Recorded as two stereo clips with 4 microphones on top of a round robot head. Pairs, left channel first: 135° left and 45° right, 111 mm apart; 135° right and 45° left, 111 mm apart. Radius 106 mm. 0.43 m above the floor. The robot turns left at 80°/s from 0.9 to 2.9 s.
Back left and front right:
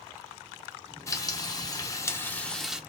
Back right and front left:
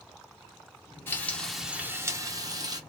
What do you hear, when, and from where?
1.1 s frying: 170° left, 0.8 m; by 2.8 s 30° left, 0.8 m